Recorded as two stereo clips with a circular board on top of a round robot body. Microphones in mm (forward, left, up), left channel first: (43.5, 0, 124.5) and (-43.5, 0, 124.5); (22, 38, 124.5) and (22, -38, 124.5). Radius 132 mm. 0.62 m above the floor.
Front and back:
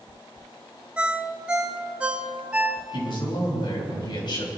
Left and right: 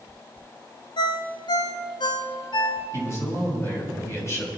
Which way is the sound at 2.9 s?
35° left.